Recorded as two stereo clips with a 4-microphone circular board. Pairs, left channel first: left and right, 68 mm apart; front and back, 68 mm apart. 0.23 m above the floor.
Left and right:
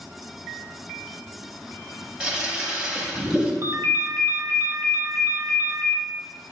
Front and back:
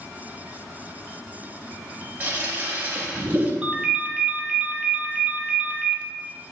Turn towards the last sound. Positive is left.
turn(degrees=-110)